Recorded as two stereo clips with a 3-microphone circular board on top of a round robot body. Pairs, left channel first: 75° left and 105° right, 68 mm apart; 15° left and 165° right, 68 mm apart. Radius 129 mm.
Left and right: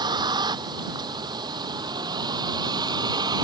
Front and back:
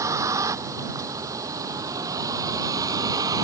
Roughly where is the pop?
I don't hear a pop.